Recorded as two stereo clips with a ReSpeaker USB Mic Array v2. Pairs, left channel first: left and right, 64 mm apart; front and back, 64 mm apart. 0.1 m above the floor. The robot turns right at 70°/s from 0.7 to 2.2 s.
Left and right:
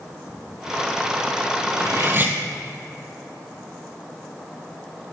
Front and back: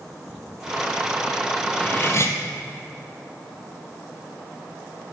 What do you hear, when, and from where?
1.7 s cutlery clinking: 70° right, 1.8 m; by 2.4 s 35° right, 1.8 m